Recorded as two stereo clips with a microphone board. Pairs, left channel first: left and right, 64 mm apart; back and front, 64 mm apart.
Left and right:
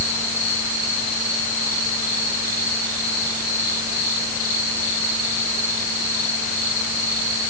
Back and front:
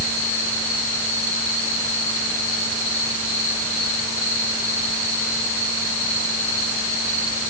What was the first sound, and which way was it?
Only background noise.